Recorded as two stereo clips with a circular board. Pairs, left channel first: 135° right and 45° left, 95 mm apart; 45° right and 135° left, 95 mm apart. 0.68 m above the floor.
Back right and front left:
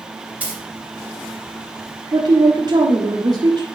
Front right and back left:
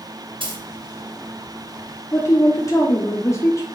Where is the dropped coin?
120° left, 2.5 m.